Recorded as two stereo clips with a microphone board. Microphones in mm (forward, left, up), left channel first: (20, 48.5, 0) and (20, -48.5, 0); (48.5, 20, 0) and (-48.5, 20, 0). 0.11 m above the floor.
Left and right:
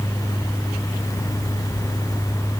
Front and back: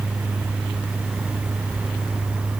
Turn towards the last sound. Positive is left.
No sound to turn to.